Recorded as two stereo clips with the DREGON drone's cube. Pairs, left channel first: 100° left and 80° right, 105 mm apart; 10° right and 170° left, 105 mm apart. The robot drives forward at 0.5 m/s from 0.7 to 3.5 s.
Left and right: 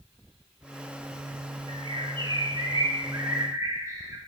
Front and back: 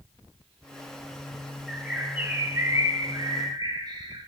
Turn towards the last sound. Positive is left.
turn(degrees=-140)